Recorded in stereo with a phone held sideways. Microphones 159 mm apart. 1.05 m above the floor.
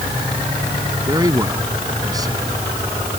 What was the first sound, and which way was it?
A man speaking, 25° right (ahead or behind).